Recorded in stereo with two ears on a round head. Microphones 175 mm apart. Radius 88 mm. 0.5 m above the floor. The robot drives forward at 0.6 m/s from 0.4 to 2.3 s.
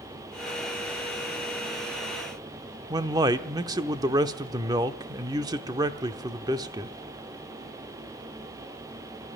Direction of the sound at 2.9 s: 20° right (ahead or behind).